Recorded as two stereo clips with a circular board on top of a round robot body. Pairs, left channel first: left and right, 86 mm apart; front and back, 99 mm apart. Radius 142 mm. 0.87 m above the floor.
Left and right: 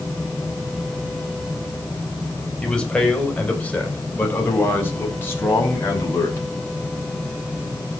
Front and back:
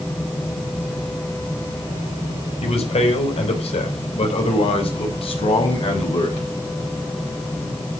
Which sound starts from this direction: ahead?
A man speaking, at 2.6 s.